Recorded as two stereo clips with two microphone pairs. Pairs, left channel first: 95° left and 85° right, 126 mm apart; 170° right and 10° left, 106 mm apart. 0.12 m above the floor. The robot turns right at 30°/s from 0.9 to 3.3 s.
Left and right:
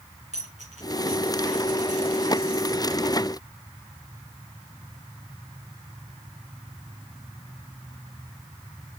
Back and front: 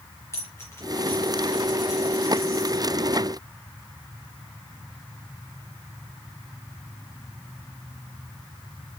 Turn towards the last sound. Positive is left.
turn(degrees=-35)